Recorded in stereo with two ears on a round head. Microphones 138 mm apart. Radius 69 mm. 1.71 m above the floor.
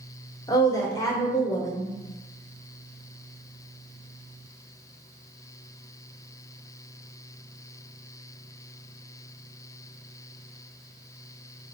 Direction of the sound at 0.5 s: 20° left (ahead or behind).